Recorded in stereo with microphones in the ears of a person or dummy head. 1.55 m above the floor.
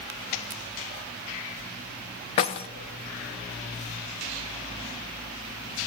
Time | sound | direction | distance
2.4 | keys jangling | 30° left (ahead or behind) | 0.6 m